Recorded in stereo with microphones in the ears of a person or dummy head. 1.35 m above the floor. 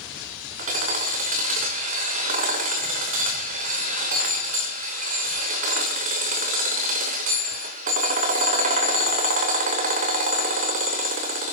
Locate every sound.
0.6 s hammering: 45° right (ahead or behind), 2.5 m